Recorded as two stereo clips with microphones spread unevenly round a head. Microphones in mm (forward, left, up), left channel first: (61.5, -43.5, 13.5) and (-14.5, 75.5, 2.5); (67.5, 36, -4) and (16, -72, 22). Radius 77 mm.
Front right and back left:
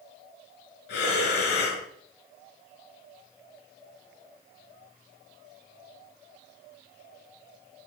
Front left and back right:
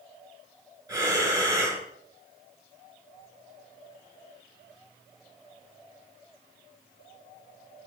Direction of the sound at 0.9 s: 55° right.